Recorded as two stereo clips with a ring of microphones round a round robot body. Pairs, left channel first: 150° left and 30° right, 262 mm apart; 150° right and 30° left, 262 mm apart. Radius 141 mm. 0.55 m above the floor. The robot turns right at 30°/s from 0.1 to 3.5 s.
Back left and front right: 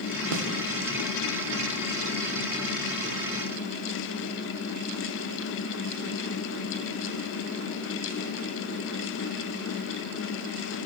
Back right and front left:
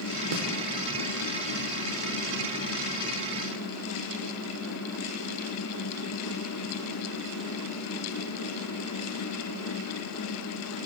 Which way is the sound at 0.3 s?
10° right.